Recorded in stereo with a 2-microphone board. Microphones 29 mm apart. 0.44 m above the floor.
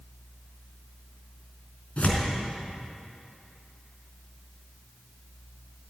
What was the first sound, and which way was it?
Tearing paper, 55° left (ahead or behind).